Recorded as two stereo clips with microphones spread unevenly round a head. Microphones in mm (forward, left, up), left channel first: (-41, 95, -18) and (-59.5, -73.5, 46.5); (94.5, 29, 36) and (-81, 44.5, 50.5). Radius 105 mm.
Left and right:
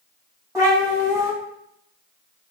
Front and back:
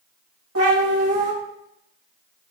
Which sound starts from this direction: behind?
A cat meowing, at 0.6 s.